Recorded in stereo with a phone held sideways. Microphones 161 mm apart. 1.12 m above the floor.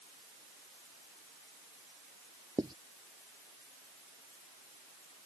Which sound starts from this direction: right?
Writing, at 2.6 s.